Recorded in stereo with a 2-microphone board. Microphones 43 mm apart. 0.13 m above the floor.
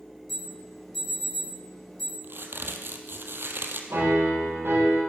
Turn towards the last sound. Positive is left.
turn(degrees=-65)  # may be behind; listen again after turning